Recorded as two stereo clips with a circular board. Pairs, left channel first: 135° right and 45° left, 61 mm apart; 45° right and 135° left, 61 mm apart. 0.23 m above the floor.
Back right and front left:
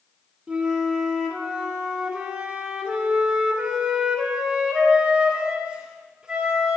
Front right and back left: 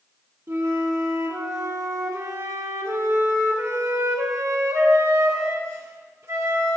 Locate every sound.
0.5 s a flute: 115° left, 1.6 m